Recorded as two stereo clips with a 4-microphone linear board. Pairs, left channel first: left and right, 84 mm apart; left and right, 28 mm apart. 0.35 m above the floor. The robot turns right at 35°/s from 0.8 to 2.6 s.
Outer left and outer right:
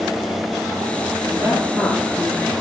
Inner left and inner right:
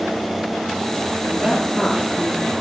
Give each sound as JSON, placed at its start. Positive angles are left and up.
{"t": 1.3, "sound": "a man speaking", "azimuth_deg": -35, "distance_m": 5.0}